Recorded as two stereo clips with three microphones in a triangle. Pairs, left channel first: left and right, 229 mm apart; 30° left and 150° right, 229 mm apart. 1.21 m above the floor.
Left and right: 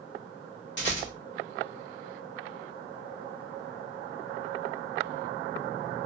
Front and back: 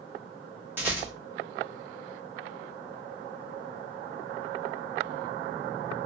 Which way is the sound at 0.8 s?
130° left.